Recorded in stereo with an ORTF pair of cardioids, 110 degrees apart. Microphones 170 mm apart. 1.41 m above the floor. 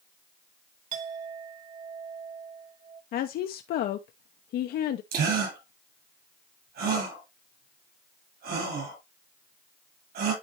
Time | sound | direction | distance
0.9 | a clink | 50° right | 1.9 m
3.1 | a woman speaking | 65° left | 0.8 m
5.1 | a gasp | 70° right | 7.5 m